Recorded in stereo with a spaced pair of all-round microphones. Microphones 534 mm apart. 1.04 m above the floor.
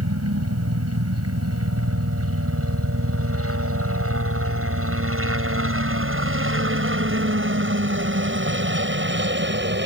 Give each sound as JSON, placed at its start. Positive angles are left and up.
{"t": 0.0, "sound": "a helicopter", "side_deg": -25}